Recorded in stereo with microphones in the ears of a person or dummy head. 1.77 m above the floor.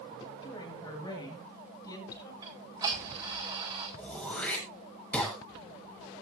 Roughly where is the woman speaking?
Left.